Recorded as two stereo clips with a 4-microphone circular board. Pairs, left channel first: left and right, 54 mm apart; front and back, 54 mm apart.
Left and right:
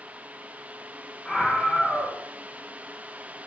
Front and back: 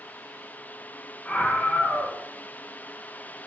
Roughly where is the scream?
Ahead.